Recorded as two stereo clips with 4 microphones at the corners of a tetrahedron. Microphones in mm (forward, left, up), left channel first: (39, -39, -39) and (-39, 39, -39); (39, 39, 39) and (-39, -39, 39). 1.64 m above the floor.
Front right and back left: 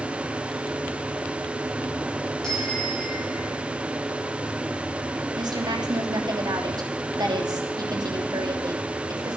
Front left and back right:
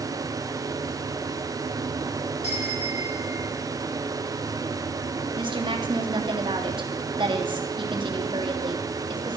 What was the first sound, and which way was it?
A bicycle bell, 40° left.